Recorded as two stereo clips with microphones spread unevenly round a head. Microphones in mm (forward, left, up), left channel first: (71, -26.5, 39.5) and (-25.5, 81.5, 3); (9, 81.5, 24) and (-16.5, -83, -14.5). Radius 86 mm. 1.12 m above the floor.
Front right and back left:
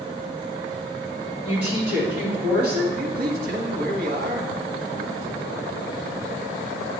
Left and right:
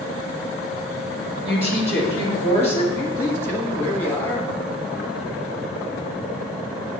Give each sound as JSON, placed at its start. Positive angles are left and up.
{"t": 1.4, "sound": "a woman speaking", "azimuth_deg": -150, "distance_m": 2.0}
{"t": 2.9, "sound": "a man speaking", "azimuth_deg": 160, "distance_m": 1.2}